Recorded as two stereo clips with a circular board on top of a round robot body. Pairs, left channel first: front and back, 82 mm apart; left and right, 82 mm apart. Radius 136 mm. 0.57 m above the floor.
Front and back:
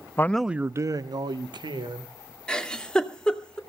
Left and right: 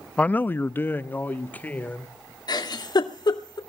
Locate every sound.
0.2 s a man speaking: 30° left, 0.7 m; by 2.1 s 160° left, 2 m
2.5 s a giggle: 80° left, 2.5 m